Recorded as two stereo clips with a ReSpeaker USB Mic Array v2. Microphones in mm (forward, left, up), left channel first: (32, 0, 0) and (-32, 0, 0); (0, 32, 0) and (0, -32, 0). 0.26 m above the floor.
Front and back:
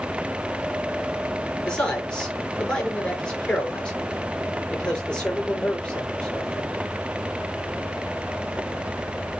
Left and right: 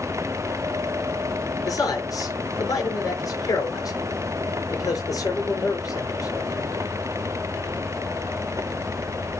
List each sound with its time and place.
1.6 s a man speaking: 75° left, 4.5 m